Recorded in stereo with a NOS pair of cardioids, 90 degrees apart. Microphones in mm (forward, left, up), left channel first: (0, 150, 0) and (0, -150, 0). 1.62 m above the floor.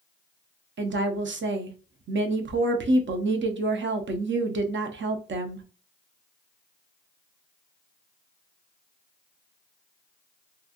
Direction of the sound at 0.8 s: 40° right.